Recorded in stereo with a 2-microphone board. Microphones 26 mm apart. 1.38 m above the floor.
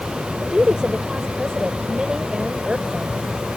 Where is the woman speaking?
30° right (ahead or behind).